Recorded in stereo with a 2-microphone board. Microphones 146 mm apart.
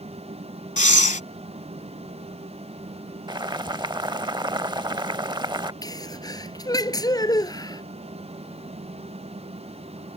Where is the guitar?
I don't hear a guitar.